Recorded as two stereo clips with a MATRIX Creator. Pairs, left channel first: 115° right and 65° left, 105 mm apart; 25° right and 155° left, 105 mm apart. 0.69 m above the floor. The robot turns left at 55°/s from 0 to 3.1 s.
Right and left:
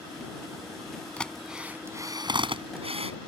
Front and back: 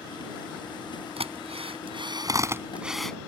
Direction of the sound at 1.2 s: 170° left.